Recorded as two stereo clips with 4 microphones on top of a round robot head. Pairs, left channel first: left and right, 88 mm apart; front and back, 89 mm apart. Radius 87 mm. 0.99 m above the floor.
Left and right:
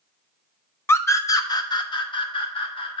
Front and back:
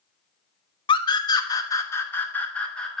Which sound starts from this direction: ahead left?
A scream, at 0.9 s.